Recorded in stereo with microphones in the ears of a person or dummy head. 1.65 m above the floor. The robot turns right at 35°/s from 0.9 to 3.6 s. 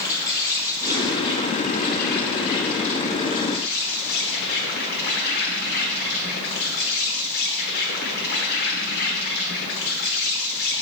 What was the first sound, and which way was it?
An insect, 15° left.